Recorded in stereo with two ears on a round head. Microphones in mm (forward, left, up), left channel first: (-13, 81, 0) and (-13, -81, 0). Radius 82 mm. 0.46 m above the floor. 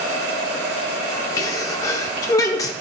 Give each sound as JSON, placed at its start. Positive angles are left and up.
{"t": 1.4, "sound": "a sneeze", "side_deg": 20, "distance_m": 0.7}